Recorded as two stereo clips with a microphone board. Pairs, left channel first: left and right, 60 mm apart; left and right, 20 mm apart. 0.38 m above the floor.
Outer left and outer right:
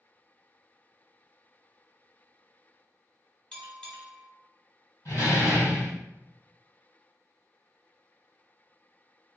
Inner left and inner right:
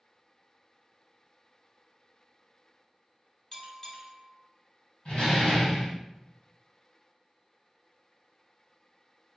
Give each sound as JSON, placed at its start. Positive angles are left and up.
{"t": 3.5, "sound": "a bell", "side_deg": 10, "distance_m": 0.7}
{"t": 5.0, "sound": "a door slam", "side_deg": 60, "distance_m": 1.5}